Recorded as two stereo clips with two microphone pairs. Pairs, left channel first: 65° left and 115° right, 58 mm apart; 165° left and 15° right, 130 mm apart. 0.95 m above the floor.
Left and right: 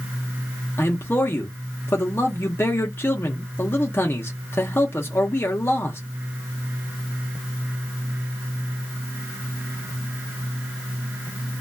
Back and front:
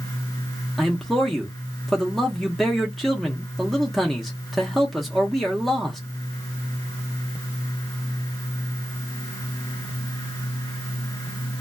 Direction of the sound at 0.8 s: 75° left.